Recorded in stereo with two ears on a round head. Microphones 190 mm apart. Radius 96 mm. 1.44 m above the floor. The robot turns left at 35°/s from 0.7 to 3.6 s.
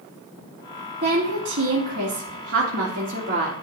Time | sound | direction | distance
1.0 | a woman speaking | 50° right | 2.0 m